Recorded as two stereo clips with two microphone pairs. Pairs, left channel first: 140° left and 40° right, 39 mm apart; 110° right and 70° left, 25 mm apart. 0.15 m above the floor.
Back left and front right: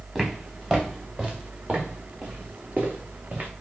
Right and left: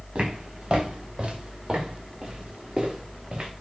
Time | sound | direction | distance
0.1 | footsteps | 35° left | 4.5 m